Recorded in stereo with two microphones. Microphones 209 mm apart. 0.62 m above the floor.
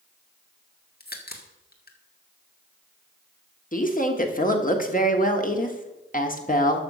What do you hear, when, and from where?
1.0 s a crack: 45° left (ahead or behind), 1.6 m
3.7 s a woman speaking: 35° left (ahead or behind), 1.5 m